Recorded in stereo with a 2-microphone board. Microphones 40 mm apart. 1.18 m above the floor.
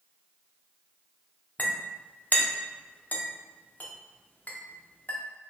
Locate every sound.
1.6 s a clink: 40° left (ahead or behind), 0.6 m